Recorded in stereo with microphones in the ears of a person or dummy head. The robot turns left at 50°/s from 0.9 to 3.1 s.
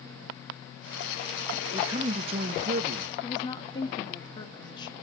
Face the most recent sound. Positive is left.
turn(degrees=25)  # may be behind; listen again after turning